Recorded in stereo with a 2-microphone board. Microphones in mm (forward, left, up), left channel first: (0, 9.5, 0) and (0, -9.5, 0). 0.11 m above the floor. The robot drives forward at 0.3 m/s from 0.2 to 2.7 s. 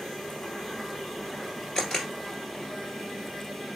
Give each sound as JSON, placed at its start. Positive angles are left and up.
{"t": 1.8, "sound": "a camera shutter", "side_deg": 35, "distance_m": 1.8}